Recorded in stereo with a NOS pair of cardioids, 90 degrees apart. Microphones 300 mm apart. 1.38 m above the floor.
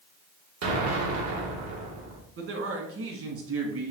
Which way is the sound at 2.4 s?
45° right.